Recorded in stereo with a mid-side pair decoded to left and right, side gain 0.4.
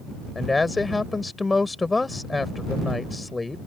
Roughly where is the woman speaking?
Ahead left.